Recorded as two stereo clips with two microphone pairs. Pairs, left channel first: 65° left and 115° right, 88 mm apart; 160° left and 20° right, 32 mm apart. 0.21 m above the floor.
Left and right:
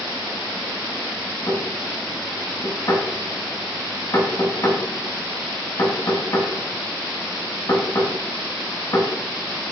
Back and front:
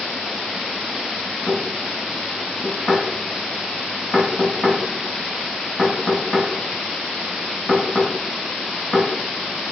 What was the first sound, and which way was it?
Knocking, 90° left.